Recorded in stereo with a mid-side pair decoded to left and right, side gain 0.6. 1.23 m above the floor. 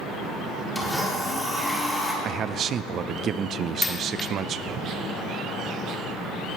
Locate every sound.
0.8 s a blender: 5° left, 3.5 m
2.2 s a man speaking: 50° right, 0.5 m
3.8 s a dropped coin: 20° left, 1.5 m